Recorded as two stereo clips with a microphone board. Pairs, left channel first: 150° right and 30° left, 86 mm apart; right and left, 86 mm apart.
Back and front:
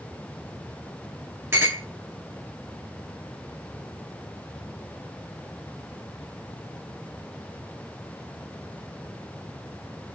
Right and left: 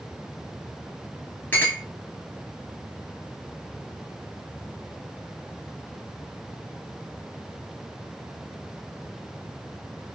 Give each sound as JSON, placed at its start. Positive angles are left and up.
{"t": 1.5, "sound": "a clink", "azimuth_deg": -25, "distance_m": 1.4}